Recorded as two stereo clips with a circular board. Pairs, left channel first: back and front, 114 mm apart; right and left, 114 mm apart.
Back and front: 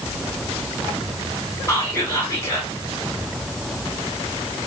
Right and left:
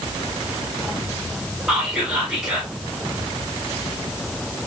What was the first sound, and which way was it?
Whispering, 165° left.